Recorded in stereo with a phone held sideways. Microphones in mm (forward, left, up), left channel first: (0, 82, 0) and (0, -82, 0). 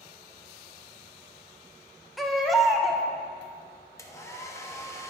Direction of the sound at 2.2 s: Centre (ahead or behind).